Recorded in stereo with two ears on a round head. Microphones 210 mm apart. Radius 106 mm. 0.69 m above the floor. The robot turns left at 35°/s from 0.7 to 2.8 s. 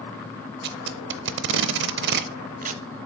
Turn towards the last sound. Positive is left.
turn(degrees=-35)  # may be behind; listen again after turning